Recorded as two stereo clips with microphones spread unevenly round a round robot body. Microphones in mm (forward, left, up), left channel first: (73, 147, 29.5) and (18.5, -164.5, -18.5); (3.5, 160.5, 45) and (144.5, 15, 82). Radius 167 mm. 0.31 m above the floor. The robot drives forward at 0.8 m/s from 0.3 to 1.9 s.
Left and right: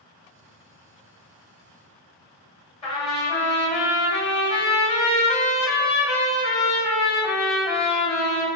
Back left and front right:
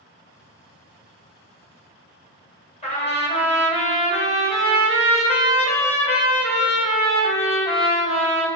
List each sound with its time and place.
2.8 s a trumpet: 155° left, 1.4 m